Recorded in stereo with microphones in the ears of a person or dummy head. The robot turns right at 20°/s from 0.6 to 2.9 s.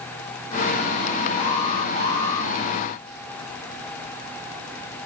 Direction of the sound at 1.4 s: 35° left (ahead or behind).